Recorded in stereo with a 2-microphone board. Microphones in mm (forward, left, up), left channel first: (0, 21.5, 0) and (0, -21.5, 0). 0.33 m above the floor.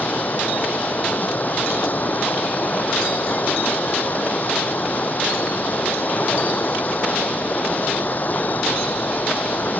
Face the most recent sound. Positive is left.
turn(degrees=45)  # may be behind; listen again after turning